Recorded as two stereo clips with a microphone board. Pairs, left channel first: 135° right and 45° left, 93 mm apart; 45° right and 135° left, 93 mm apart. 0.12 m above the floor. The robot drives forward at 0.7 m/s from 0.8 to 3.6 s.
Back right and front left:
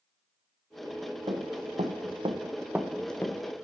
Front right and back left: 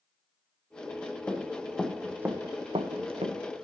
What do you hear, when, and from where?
1.3 s running footsteps: 30° left, 2 m; by 3.6 s 160° left, 1.8 m